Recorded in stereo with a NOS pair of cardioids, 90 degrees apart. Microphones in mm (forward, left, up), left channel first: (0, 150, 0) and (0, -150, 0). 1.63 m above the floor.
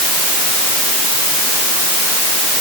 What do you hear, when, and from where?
Only background noise.